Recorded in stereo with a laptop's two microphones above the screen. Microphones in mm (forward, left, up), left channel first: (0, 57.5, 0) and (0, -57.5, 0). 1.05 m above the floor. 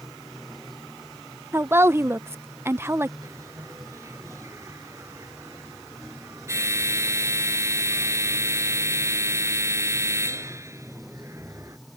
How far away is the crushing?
No crushing in this recording.